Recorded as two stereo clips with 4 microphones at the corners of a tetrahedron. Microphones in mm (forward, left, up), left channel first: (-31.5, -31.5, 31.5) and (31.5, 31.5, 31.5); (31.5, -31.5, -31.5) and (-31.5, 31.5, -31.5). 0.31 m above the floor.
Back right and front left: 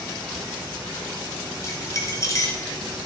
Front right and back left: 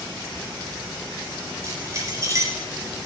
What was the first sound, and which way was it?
Keys jangling, straight behind.